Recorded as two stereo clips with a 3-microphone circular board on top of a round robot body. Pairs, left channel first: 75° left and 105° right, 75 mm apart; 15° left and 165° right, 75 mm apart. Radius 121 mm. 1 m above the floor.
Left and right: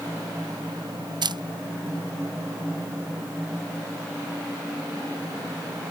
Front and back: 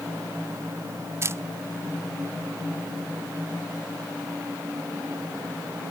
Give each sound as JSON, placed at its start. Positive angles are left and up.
{"t": 1.2, "sound": "a camera shutter", "azimuth_deg": -110}